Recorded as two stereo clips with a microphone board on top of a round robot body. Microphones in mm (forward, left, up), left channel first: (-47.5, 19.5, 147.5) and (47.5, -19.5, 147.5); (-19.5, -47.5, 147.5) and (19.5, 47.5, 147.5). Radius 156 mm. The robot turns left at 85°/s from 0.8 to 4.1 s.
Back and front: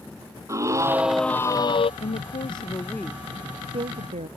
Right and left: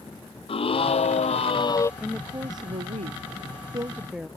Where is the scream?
85° right; by 1.9 s straight behind.